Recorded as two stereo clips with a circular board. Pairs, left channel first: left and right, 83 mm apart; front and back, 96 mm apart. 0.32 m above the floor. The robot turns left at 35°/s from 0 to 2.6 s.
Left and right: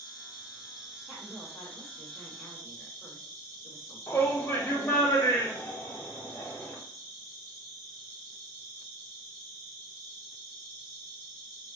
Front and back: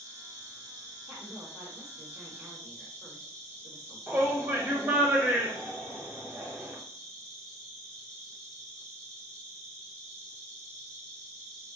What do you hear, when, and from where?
0.0 s an insect: 125° right, 2.5 m; by 11.8 s 140° left, 2.5 m
1.1 s a woman speaking: 130° right, 1.3 m; by 5.1 s 175° left, 1.3 m
4.1 s a shout: 130° left, 1.2 m